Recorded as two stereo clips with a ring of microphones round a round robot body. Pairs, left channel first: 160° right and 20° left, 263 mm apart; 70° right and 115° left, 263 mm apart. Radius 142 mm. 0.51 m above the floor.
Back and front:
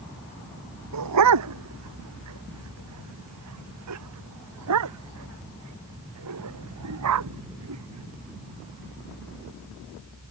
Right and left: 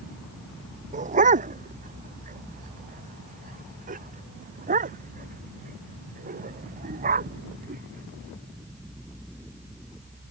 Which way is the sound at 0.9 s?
50° left.